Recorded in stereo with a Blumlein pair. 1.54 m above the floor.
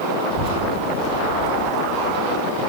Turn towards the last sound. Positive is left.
turn(degrees=15)